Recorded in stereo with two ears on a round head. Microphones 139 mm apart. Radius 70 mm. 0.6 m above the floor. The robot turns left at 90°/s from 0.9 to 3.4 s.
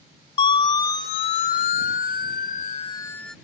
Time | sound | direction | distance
0.4 | a siren | 35° left (ahead or behind) | ?